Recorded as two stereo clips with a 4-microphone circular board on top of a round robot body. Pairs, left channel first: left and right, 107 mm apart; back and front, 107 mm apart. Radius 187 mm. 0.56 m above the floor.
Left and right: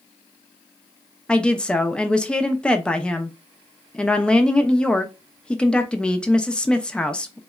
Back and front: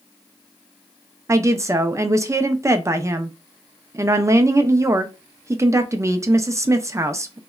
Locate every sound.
1.3 s a woman speaking: 20° left, 0.6 m